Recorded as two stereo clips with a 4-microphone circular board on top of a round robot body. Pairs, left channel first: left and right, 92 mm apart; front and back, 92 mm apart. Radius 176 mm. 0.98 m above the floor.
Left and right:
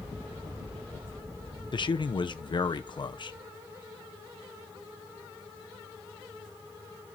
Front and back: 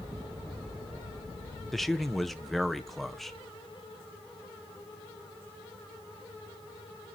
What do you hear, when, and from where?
1.7 s a man speaking: 90° left, 0.7 m